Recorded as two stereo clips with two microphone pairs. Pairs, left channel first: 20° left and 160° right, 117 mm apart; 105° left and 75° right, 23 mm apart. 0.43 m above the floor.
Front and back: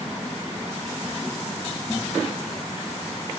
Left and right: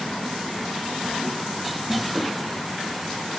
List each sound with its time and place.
Only background noise.